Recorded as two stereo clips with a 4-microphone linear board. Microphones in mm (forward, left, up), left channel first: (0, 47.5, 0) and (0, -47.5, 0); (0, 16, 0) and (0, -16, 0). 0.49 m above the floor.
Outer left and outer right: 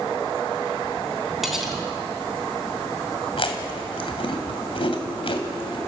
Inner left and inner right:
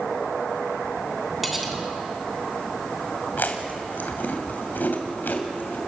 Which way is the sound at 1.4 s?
5° right (ahead or behind).